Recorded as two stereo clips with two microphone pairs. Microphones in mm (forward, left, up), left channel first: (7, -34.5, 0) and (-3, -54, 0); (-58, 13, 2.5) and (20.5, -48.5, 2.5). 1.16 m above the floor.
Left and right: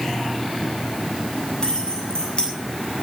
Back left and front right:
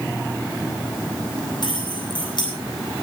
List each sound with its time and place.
1.6 s keys jangling: 100° left, 9 m